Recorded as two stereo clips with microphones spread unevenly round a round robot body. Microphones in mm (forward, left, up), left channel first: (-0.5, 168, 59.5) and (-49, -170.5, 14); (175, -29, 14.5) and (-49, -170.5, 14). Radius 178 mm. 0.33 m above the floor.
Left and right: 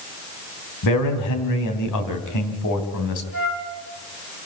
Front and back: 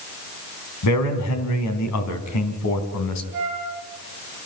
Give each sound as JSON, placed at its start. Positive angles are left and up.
{"t": 0.8, "sound": "a man speaking", "azimuth_deg": 45, "distance_m": 3.0}
{"t": 3.3, "sound": "a flute", "azimuth_deg": 130, "distance_m": 6.5}